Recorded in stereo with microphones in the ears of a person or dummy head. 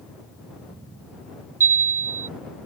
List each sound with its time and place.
1.6 s a chime: 20° right (ahead or behind)